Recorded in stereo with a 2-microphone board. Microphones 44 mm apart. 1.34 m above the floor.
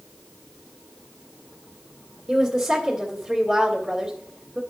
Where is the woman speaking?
15° right (ahead or behind), 1.7 m.